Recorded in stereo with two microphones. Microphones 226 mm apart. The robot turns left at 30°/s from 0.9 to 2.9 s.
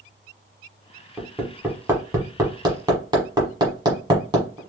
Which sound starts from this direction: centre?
Hammering, at 1.2 s.